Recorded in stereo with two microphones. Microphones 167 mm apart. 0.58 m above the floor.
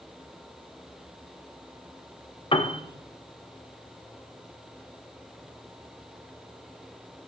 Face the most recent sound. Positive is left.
turn(degrees=30)  # may be behind; listen again after turning